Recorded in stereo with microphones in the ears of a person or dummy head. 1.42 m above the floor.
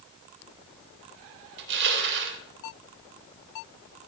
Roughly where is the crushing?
Right.